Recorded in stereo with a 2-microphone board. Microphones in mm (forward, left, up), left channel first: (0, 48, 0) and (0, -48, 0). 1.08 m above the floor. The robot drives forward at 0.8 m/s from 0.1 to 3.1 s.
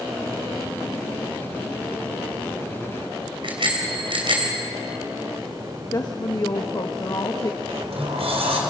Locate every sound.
3.4 s a bicycle bell: 60° right (ahead or behind), 4 m
5.9 s a woman speaking: 40° left (ahead or behind), 1.3 m
7.7 s a sliding door: 75° right (ahead or behind), 4.5 m